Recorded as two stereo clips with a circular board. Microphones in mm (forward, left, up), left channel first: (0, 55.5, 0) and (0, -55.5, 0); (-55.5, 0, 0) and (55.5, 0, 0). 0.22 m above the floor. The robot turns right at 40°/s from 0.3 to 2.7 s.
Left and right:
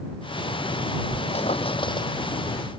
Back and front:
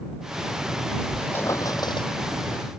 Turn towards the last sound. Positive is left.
turn(degrees=165)